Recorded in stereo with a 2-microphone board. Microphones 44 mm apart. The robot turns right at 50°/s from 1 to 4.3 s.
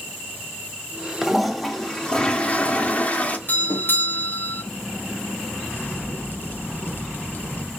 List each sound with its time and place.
1.2 s a toilet flushing: 15° right, 0.8 m; by 3.4 s 95° left, 0.8 m
3.5 s a doorbell: 80° left, 1.2 m; by 4.6 s 120° left, 1.2 m
5.7 s a crack: 50° left (ahead or behind), 1.2 m